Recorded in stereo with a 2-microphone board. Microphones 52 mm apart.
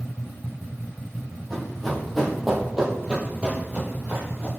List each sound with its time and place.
1.5 s running footsteps: 5° left (ahead or behind), 2 m; by 4.5 s 30° right (ahead or behind), 1.8 m